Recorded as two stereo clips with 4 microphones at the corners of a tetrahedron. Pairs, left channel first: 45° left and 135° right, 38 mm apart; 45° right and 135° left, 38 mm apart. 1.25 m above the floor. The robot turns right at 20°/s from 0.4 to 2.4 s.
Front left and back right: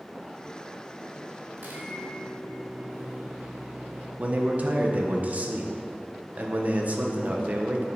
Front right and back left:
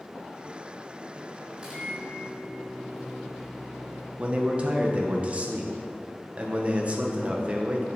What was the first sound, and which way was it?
A microwave, 160° right.